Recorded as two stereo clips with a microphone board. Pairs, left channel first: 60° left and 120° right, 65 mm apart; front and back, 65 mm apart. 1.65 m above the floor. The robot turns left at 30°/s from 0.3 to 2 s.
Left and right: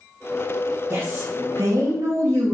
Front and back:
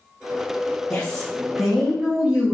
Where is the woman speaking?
70° right, 2 m; by 2.5 s 105° right, 2 m.